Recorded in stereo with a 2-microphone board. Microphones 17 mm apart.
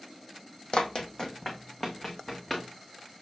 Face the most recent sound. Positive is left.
turn(degrees=20)  # may be behind; listen again after turning